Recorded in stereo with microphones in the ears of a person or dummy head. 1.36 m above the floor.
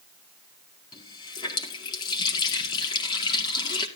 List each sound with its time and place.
0.9 s a running tap: 25° left (ahead or behind), 2.5 m